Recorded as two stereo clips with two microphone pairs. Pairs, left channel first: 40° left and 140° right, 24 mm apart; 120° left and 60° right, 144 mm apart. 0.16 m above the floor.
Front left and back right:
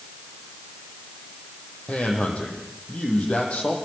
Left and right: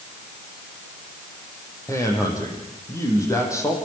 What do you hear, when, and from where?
1.9 s a man speaking: 50° left, 7.5 m